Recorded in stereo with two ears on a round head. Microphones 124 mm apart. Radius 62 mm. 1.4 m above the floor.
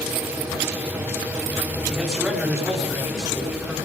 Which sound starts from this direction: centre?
A man speaking, at 1.9 s.